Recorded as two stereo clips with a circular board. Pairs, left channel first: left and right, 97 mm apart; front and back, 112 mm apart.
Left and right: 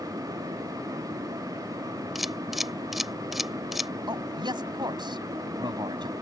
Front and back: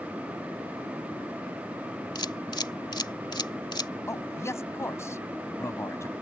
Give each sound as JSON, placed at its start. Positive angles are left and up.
{"t": 2.1, "sound": "a camera shutter", "azimuth_deg": -5}
{"t": 4.1, "sound": "a man speaking", "azimuth_deg": -60}